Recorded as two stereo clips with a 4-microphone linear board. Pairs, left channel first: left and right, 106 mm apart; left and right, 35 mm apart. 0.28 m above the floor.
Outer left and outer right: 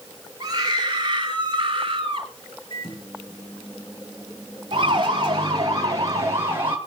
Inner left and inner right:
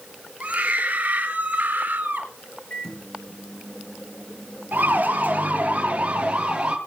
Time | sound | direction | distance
0.4 | a scream | 35° right (ahead or behind) | 6.5 m
2.7 | a microwave | 45° left (ahead or behind) | 5 m
4.7 | a siren | 45° right (ahead or behind) | 6 m